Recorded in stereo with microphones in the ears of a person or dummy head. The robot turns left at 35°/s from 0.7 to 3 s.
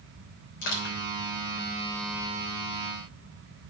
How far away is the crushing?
About 3.5 m.